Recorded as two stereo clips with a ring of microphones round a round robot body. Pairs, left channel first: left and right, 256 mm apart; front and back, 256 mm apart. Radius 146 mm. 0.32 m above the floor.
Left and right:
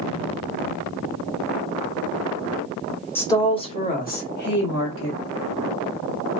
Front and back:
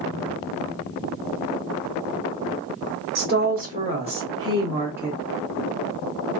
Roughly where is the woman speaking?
Behind.